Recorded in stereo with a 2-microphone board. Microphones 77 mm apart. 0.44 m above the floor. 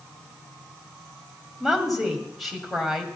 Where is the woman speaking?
Centre (ahead or behind), 2.5 m.